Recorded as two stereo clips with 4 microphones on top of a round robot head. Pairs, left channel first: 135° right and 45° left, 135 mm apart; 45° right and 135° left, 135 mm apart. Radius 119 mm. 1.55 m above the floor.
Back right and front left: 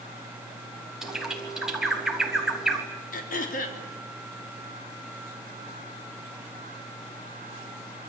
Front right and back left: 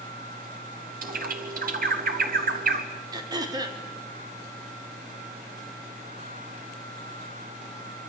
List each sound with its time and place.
1.0 s a bird: 130° left, 3.5 m
3.1 s throat clearing: 160° right, 3 m